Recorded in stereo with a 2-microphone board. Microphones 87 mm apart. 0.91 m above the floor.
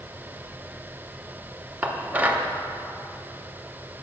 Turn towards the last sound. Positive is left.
turn(degrees=-20)  # may be behind; listen again after turning